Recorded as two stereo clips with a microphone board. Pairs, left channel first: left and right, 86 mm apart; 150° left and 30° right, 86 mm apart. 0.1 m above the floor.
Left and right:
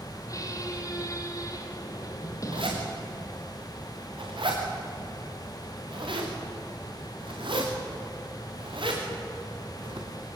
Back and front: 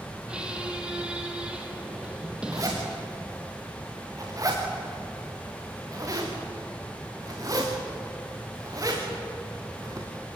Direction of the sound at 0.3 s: 50° left.